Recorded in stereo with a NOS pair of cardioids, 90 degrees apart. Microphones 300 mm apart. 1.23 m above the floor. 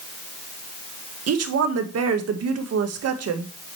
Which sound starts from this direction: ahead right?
A woman speaking, at 1.3 s.